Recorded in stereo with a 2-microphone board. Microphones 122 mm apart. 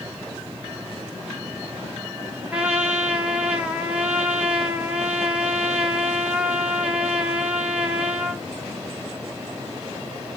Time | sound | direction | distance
2.5 | a trumpet | 10° right (ahead or behind) | 1.4 m